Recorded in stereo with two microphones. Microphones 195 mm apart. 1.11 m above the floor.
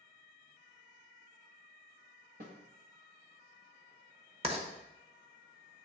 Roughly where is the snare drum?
Right.